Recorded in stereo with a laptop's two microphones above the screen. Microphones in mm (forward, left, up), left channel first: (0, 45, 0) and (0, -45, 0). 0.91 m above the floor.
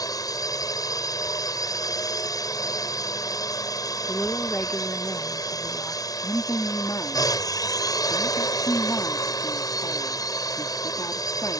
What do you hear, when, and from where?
0.0 s a drone: 40° left (ahead or behind)
4.1 s a woman speaking: 20° left (ahead or behind)
6.2 s a woman speaking: 40° left (ahead or behind)